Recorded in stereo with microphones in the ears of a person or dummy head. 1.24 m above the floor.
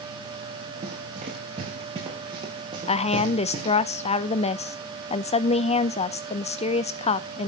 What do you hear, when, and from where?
0.8 s running footsteps: 35° right (ahead or behind), 6 m; by 3.8 s 25° right (ahead or behind), 6.5 m
2.9 s a woman speaking: 35° left (ahead or behind), 0.8 m